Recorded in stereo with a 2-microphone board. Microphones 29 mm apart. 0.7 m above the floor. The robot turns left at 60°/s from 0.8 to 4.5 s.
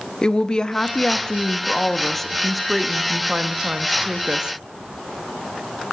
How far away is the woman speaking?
About 0.6 m.